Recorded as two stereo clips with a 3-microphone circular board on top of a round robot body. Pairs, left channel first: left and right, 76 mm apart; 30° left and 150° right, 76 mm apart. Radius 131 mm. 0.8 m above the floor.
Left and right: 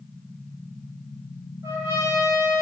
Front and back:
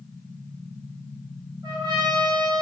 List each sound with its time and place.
1.6 s a trumpet: 130° right, 3.5 m